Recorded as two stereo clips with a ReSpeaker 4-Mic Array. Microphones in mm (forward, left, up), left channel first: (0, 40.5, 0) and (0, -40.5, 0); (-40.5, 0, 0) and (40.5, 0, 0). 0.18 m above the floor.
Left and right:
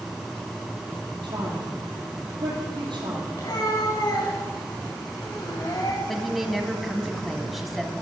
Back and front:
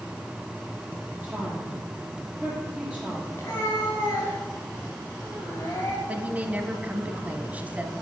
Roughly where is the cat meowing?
Behind left.